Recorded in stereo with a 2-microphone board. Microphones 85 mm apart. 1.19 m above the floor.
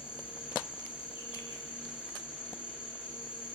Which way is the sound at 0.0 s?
75° left (ahead or behind).